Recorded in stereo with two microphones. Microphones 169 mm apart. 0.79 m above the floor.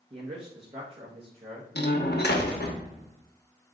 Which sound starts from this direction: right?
A man speaking, at 0.1 s.